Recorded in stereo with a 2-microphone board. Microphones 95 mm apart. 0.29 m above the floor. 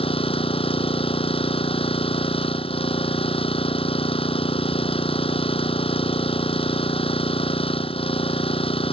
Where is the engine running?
70° left (ahead or behind).